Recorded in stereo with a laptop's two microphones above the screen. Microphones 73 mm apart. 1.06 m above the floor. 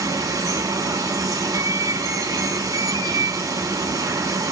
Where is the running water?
55° right (ahead or behind), 1.1 m.